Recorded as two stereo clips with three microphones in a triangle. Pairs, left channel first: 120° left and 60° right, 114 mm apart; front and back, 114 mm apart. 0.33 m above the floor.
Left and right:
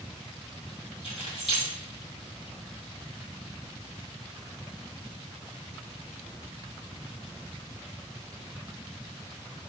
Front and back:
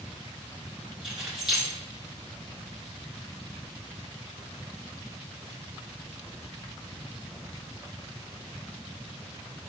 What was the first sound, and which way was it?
Keys jangling, 95° left.